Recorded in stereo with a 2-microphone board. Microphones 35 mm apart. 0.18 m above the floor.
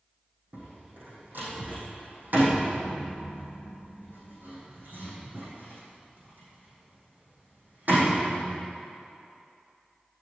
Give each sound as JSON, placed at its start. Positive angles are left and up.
{"t": 0.5, "sound": "a door slam", "side_deg": -60, "distance_m": 5.0}